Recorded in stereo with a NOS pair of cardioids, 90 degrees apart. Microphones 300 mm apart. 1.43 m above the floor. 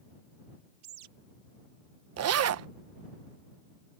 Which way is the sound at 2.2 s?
60° right.